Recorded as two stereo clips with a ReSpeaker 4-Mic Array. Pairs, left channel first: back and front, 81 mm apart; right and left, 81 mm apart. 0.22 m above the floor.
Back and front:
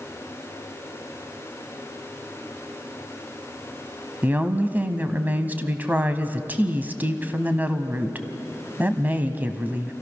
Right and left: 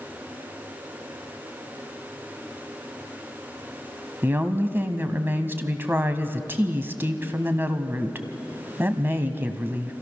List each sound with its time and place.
4.2 s a woman speaking: 50° left, 1.2 m